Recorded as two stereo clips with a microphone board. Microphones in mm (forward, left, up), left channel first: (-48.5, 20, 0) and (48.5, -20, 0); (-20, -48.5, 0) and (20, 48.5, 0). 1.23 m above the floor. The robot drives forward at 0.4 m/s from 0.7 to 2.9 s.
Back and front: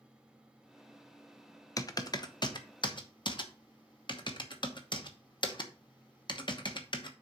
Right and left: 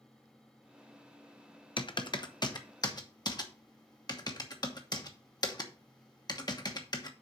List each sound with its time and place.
1.8 s typing on a keyboard: 150° right, 0.7 m; by 7.1 s 160° right, 1.1 m